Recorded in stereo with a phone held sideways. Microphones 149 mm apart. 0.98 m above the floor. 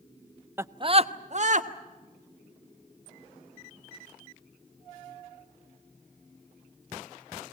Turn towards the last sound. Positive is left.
turn(degrees=-55)  # may be behind; listen again after turning